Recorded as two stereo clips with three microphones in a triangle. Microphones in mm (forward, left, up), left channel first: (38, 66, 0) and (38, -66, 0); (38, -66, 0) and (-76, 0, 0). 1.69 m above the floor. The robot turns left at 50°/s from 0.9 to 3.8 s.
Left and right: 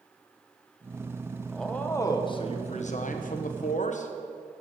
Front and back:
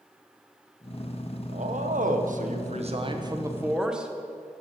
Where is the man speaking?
Straight behind, 1.4 m; by 4.1 s 65° left, 1.4 m.